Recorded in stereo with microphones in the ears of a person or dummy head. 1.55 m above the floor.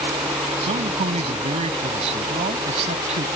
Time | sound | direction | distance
0.6 | a man speaking | 35° right (ahead or behind) | ?